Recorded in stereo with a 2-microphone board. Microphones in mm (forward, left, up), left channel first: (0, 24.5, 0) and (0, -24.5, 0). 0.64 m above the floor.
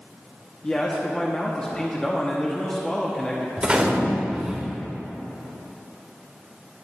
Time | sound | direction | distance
0.6 | a man speaking | 15° left (ahead or behind) | 0.7 m
3.6 | a gunshot | 20° right (ahead or behind) | 1.0 m